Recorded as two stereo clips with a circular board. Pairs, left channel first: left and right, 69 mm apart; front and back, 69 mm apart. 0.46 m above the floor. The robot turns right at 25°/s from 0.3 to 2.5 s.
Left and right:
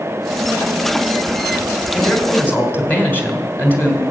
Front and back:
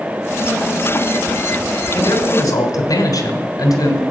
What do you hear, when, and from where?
1.9 s a man speaking: 15° left, 2.5 m; by 4.0 s 30° left, 2.5 m